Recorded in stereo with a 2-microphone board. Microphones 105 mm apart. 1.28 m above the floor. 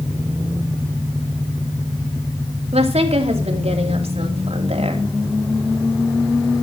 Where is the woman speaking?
80° right, 3 m.